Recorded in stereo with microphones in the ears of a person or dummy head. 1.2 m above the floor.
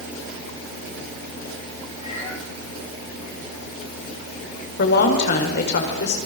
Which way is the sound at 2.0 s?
35° left (ahead or behind).